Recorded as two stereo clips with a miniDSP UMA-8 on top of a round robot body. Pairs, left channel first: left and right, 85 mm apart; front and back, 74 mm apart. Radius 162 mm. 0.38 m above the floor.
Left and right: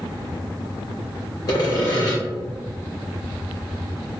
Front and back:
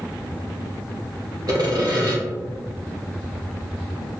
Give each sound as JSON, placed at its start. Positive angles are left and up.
{"t": 1.5, "sound": "sawing", "azimuth_deg": 140, "distance_m": 1.9}